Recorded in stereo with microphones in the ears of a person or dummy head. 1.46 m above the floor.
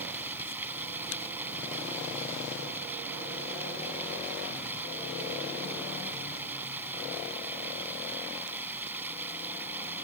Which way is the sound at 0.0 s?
10° right (ahead or behind).